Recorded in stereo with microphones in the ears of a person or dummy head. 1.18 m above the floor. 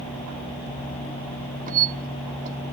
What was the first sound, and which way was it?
A squeak, 45° right (ahead or behind).